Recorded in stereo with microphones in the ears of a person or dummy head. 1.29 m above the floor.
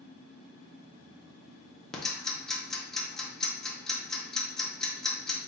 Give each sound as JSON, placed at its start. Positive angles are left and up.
{"t": 1.9, "sound": "ticking", "side_deg": 0, "distance_m": 0.7}